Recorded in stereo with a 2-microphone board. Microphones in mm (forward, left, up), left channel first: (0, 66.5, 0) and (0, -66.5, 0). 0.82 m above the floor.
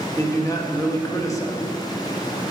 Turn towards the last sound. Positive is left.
turn(degrees=20)  # may be behind; listen again after turning